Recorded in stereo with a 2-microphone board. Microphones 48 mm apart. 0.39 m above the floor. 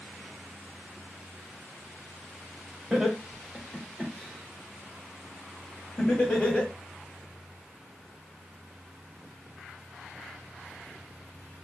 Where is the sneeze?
No sneeze in this recording.